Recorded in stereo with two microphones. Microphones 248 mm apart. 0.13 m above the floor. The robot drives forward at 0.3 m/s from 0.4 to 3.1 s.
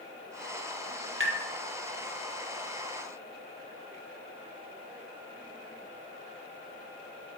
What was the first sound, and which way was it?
Tapping, 55° right (ahead or behind).